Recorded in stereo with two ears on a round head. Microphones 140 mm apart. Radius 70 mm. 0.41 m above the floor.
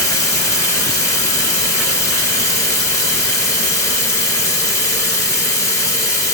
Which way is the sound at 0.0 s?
20° left (ahead or behind).